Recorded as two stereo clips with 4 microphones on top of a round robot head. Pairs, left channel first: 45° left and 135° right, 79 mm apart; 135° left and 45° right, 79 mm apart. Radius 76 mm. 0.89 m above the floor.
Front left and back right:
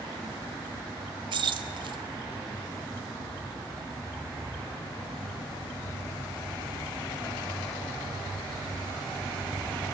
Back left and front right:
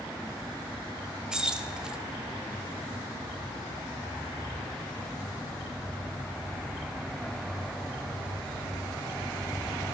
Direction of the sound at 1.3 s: 125° right.